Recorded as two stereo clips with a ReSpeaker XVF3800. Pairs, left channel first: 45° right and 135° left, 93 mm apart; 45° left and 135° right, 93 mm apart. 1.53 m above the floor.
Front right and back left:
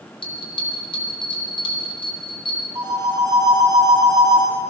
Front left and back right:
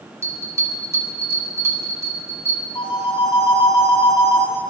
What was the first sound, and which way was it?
A bell, 75° right.